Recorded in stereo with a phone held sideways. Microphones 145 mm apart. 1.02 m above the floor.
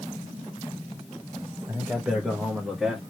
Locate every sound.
1.7 s a man speaking: 20° right (ahead or behind), 0.7 m; by 3.0 s 5° right (ahead or behind), 1.4 m